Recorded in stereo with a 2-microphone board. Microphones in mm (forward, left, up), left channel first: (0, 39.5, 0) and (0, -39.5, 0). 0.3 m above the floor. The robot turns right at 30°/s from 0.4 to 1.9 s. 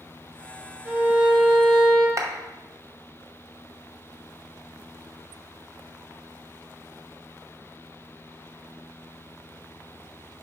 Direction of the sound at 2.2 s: 40° right (ahead or behind).